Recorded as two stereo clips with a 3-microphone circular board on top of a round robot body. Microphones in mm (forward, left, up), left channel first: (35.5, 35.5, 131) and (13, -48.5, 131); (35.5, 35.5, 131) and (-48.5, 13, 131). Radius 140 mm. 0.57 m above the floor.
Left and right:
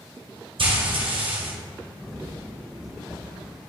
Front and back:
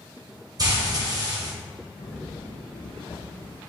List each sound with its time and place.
0.6 s frying: 120° right, 1.8 m
2.0 s footsteps: 15° right, 0.7 m; by 3.6 s 20° right, 1.4 m